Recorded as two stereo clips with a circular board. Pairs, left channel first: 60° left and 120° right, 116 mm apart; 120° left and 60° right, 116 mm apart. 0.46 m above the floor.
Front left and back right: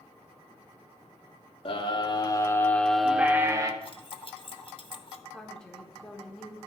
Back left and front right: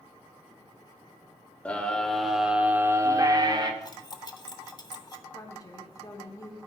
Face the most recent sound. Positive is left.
turn(degrees=140)